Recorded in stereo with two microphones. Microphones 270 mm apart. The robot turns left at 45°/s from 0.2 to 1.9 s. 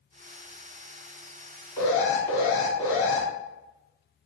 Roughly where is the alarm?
Centre.